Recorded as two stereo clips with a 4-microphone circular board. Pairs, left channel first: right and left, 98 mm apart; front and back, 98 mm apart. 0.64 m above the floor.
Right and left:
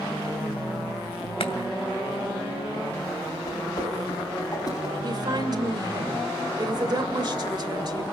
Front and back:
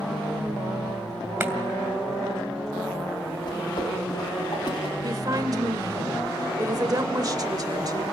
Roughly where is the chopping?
Right.